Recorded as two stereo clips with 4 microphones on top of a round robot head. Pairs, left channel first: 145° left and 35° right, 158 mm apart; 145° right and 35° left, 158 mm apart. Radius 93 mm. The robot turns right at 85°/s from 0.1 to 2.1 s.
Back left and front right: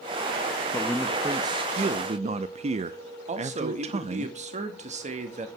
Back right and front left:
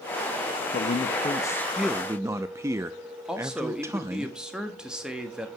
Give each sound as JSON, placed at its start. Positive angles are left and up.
{"t": 0.7, "sound": "a man speaking", "azimuth_deg": -145, "distance_m": 0.6}
{"t": 3.3, "sound": "a man speaking", "azimuth_deg": -50, "distance_m": 1.4}